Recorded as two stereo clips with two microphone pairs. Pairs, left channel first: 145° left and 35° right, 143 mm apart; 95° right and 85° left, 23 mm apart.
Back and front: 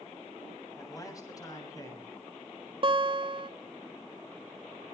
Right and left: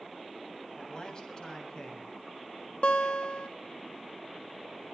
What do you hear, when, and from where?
0.8 s a man speaking: 150° right, 7.5 m
2.8 s a guitar: 85° right, 2 m